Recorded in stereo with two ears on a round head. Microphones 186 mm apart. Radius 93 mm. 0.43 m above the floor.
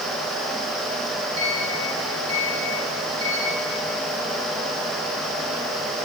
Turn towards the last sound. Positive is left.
turn(degrees=-70)  # may be behind; listen again after turning